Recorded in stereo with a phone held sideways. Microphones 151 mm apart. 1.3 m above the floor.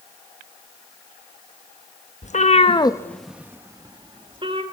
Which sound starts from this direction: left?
A cat meowing, at 2.2 s.